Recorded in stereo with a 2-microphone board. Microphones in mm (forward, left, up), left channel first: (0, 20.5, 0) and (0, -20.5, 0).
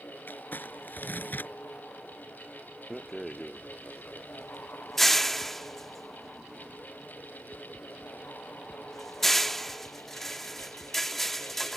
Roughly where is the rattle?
Centre.